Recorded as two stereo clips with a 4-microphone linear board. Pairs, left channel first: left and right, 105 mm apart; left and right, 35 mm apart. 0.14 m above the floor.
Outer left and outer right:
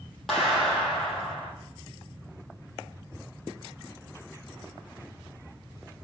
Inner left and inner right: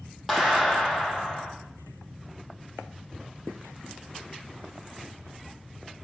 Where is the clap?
Centre (ahead or behind), 4 m.